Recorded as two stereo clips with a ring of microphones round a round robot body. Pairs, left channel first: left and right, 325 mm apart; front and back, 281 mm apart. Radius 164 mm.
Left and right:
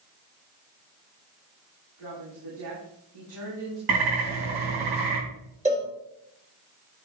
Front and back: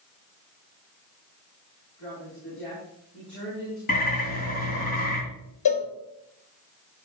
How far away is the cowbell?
About 3.5 m.